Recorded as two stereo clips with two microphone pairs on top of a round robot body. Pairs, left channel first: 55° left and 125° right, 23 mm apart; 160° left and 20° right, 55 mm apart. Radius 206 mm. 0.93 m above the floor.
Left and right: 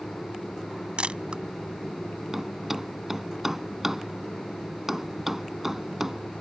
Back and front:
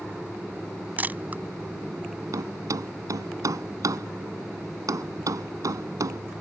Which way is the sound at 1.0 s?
80° right.